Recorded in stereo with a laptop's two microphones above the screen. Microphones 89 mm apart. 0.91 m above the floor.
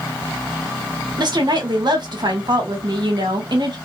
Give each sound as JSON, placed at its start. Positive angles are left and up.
{"t": 1.2, "sound": "a woman speaking", "side_deg": -55, "distance_m": 1.1}